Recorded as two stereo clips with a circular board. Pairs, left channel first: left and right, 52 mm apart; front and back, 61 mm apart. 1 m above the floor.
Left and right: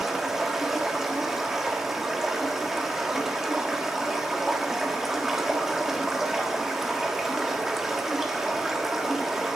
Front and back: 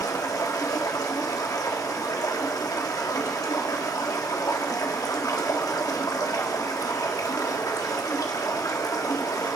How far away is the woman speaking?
I don't hear a woman speaking.